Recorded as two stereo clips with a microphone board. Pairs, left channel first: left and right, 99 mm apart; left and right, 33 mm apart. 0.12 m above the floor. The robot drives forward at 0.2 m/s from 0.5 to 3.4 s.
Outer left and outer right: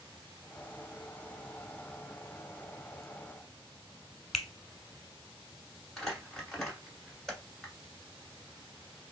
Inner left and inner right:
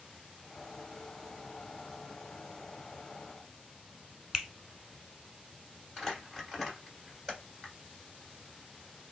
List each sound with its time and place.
4.3 s a finger snap: 5° right (ahead or behind), 0.9 m
6.0 s crumpling: 5° left (ahead or behind), 1.5 m